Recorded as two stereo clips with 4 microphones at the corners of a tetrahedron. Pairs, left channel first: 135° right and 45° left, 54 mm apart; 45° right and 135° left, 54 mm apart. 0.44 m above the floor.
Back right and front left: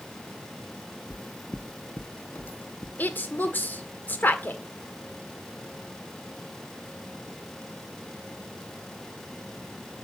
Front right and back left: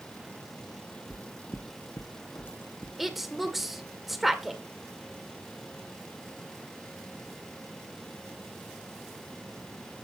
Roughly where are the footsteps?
Right.